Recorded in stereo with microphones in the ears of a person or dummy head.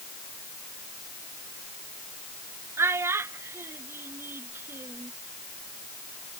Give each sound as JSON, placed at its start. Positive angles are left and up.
{"t": 2.8, "sound": "a child speaking", "side_deg": -15}